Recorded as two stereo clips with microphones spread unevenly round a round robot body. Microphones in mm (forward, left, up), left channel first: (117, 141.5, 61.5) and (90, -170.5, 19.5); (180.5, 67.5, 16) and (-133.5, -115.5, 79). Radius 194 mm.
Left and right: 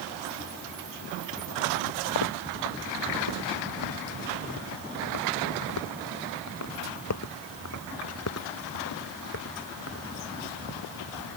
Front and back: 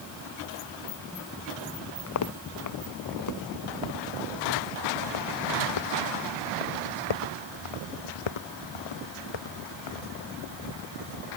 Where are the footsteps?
85° left; by 10.1 s 40° left.